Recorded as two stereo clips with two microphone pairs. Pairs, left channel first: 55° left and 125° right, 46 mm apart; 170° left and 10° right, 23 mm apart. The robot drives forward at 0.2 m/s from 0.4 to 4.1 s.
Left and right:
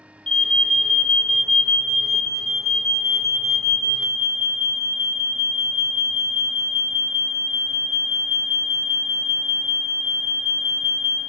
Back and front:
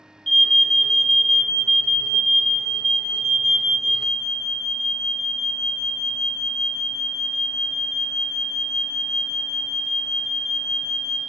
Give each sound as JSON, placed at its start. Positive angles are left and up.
{"t": 0.3, "sound": "an alarm", "azimuth_deg": 120, "distance_m": 1.3}